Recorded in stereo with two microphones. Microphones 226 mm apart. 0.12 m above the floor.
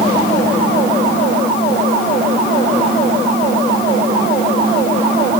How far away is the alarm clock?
I don't hear an alarm clock.